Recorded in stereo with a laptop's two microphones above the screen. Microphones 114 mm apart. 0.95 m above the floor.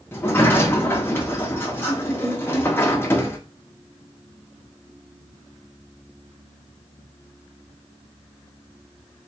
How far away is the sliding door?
About 0.6 m.